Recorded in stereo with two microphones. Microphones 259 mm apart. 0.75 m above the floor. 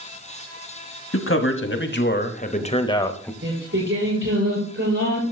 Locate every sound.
1.1 s a man speaking: 55° left (ahead or behind), 1.5 m; by 3.3 s 5° left (ahead or behind), 1.0 m
3.4 s singing: 50° right (ahead or behind), 7.5 m